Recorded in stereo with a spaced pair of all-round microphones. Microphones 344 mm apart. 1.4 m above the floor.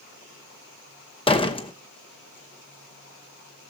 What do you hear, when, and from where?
1.3 s a door slam: 15° left (ahead or behind), 0.9 m